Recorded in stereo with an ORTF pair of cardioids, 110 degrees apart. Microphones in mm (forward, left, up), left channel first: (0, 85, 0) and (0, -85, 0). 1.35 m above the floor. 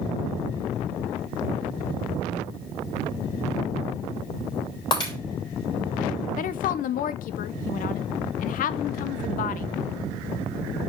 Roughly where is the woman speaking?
Ahead left.